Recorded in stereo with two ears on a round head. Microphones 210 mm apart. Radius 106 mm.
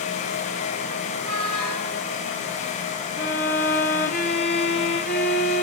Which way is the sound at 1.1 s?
30° left (ahead or behind).